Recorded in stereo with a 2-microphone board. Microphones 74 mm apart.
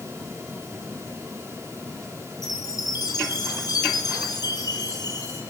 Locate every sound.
2.4 s a chime: 60° left (ahead or behind), 4 m